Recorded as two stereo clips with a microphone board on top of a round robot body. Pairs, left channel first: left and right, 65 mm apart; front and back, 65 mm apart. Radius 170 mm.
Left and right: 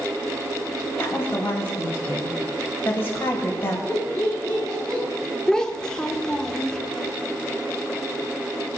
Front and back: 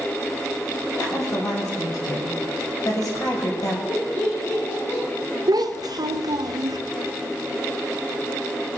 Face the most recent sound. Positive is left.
turn(degrees=170)